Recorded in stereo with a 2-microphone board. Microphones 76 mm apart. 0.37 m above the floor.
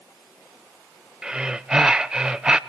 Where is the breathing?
10° right (ahead or behind), 0.6 m.